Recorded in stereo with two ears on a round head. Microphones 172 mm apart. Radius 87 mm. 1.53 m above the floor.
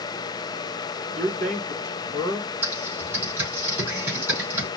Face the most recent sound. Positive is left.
turn(degrees=-10)  # may be behind; listen again after turning